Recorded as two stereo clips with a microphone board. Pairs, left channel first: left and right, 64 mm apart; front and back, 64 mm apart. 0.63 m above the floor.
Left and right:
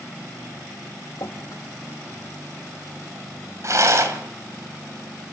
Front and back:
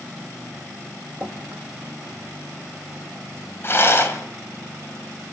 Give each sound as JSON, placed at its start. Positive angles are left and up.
{"t": 1.2, "sound": "dripping", "azimuth_deg": 115, "distance_m": 4.0}
{"t": 3.6, "sound": "a rattle", "azimuth_deg": -50, "distance_m": 3.0}